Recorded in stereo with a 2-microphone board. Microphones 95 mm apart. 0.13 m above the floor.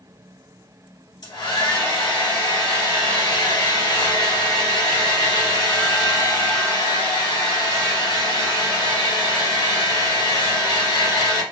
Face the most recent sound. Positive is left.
turn(degrees=45)  # may be behind; listen again after turning